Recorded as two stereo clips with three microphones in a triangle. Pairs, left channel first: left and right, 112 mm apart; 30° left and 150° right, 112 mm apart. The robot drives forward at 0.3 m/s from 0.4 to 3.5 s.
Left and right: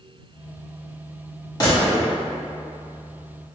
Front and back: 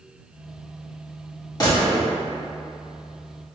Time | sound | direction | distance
1.6 | a gunshot | 60° left | 1.6 m